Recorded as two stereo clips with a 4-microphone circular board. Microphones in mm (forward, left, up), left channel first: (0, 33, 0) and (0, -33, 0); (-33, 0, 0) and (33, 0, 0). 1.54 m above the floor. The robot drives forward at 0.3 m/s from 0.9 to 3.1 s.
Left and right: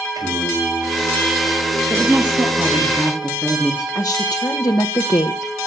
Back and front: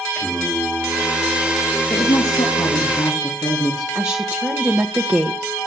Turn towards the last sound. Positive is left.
turn(degrees=65)